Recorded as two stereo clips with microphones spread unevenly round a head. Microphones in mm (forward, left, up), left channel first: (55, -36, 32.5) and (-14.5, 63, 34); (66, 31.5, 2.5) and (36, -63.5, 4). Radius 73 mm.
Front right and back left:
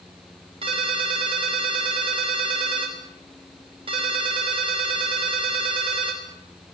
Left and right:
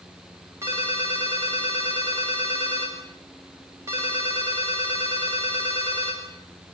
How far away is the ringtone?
About 5 m.